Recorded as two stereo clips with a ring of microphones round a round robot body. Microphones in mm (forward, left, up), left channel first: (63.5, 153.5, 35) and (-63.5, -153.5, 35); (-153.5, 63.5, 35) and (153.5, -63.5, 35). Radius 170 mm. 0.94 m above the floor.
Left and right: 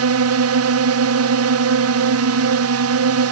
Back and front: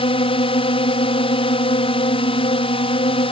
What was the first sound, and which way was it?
A drone, 135° right.